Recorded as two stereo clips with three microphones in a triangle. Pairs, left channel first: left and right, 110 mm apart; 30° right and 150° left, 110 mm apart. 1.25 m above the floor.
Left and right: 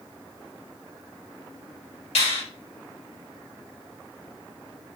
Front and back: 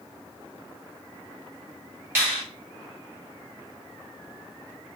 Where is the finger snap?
80° left, 2 m.